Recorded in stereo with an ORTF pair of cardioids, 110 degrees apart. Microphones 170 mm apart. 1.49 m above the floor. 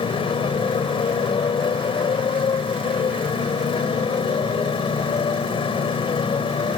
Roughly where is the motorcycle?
Ahead left.